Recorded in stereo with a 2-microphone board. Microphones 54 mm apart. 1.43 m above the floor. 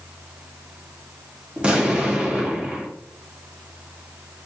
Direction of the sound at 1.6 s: 20° right (ahead or behind).